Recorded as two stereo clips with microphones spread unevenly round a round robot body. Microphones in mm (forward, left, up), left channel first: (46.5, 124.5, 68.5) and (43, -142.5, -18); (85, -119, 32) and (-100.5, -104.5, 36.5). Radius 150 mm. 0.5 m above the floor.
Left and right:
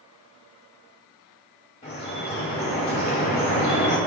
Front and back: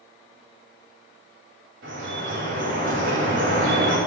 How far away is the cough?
I don't hear a cough.